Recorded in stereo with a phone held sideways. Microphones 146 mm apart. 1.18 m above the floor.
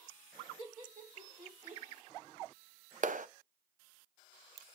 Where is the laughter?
55° right (ahead or behind), 2 m; by 1.8 s 70° right (ahead or behind), 1.4 m.